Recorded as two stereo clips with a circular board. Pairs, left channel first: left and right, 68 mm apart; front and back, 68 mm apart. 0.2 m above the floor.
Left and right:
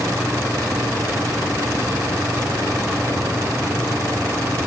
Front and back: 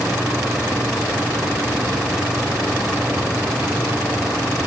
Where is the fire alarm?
I don't hear a fire alarm.